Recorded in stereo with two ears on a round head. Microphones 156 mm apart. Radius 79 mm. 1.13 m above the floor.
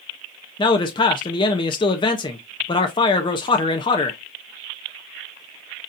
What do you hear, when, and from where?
0.6 s a man speaking: 25° left (ahead or behind), 0.6 m